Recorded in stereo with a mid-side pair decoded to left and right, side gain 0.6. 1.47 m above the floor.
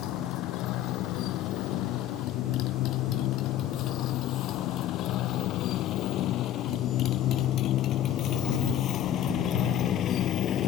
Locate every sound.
0.0 s a motorcycle: 65° left; by 10.7 s 50° left